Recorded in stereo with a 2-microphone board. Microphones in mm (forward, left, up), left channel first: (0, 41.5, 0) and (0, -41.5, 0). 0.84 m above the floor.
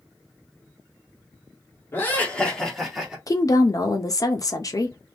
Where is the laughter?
30° left (ahead or behind), 1.6 m; by 3.2 s 10° right (ahead or behind), 1.7 m.